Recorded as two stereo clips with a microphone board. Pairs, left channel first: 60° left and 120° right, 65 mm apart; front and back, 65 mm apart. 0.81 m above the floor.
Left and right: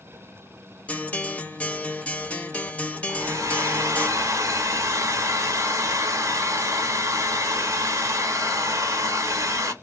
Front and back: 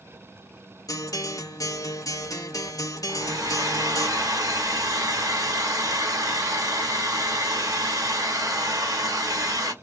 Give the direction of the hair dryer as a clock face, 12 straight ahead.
5 o'clock.